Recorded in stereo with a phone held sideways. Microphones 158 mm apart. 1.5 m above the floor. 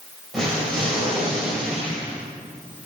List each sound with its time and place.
0.3 s an explosion: 5° left (ahead or behind), 4.5 m